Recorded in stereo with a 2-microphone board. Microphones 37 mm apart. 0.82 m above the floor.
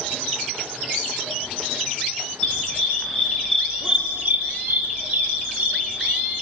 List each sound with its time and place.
2.4 s a dog barking: 30° left (ahead or behind), 2.5 m; by 6.3 s 50° right (ahead or behind), 3.5 m